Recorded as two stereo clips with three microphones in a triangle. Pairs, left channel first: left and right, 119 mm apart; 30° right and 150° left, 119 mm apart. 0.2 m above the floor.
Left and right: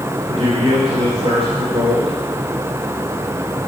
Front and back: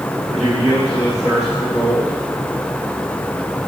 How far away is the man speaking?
About 4.5 m.